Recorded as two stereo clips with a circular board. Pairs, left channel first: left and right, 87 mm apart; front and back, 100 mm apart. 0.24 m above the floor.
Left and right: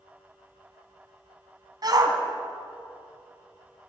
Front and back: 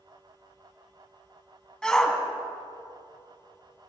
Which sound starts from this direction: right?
A shout, at 1.8 s.